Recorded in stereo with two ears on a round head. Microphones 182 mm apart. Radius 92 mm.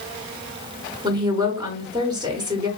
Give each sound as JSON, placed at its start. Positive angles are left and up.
{"t": 1.0, "sound": "a woman speaking", "side_deg": -20, "distance_m": 1.0}